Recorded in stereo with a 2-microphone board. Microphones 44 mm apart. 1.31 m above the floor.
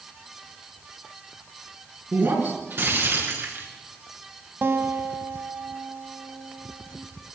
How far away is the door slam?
I don't hear a door slam.